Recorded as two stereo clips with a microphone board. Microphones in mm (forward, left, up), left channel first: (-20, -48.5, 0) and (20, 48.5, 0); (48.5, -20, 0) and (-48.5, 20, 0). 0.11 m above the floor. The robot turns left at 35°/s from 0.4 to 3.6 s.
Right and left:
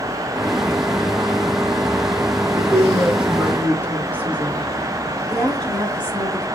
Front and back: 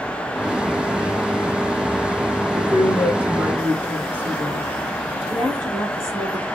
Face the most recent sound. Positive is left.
turn(degrees=-175)